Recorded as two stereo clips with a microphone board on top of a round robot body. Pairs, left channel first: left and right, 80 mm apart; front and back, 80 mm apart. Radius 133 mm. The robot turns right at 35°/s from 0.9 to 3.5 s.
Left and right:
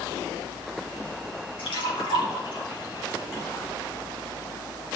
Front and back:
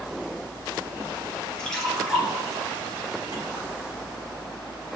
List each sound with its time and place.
1.6 s a splash: 80° left, 3 m; by 3.7 s 145° left, 3 m